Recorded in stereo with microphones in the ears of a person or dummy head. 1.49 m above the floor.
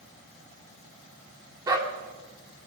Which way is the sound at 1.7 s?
20° right (ahead or behind).